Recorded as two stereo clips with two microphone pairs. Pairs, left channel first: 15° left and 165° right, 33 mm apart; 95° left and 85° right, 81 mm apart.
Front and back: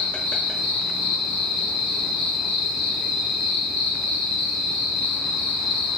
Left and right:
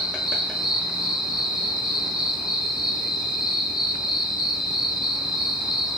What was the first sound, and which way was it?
An insect, 15° right.